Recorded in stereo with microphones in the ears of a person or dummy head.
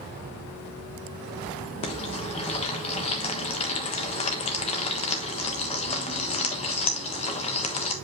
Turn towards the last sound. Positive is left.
turn(degrees=30)  # may be behind; listen again after turning